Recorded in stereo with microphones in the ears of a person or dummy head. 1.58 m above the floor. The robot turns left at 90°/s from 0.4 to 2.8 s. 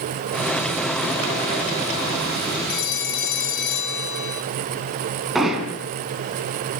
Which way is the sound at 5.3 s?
10° right (ahead or behind).